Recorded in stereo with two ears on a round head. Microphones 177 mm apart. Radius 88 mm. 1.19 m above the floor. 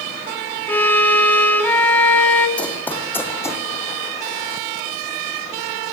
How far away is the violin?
About 2.0 m.